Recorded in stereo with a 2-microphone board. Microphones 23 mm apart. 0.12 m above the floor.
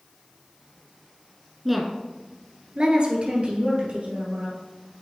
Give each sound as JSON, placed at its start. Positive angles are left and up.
{"t": 1.6, "sound": "a woman speaking", "side_deg": -5, "distance_m": 1.1}